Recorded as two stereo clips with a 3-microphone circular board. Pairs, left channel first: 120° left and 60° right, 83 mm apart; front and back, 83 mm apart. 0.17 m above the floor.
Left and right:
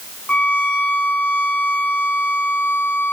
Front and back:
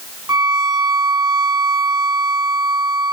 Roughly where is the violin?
Behind.